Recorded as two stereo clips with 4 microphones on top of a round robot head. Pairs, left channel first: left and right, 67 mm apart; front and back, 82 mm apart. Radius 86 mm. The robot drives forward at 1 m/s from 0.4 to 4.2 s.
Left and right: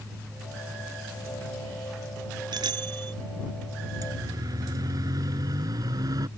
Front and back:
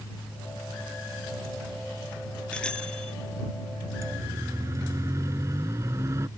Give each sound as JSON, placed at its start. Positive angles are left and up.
{"t": 2.5, "sound": "a bicycle bell", "azimuth_deg": -80}
{"t": 4.0, "sound": "a siren", "azimuth_deg": -120}